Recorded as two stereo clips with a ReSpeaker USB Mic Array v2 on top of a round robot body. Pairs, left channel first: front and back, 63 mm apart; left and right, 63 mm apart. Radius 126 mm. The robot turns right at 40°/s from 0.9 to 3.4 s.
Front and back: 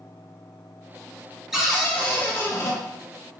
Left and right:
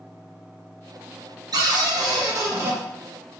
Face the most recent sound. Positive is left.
turn(degrees=-15)